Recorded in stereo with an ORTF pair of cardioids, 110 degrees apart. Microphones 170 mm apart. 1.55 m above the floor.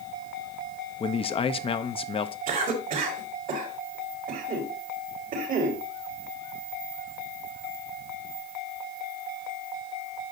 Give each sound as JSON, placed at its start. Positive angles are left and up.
{"t": 1.0, "sound": "a man speaking", "azimuth_deg": 35, "distance_m": 0.8}
{"t": 2.5, "sound": "a cough", "azimuth_deg": -50, "distance_m": 4.5}